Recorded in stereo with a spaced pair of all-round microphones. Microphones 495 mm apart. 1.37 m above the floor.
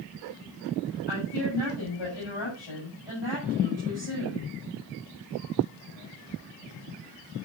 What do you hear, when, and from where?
1.1 s a woman speaking: 60° left (ahead or behind), 7 m